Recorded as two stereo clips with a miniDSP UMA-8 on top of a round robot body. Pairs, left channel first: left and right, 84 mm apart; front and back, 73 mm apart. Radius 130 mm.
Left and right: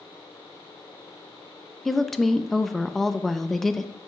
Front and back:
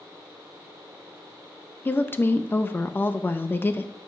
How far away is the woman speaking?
About 0.6 m.